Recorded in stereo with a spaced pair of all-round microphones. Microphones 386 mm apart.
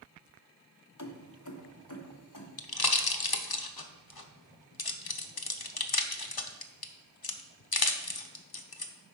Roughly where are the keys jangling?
Left.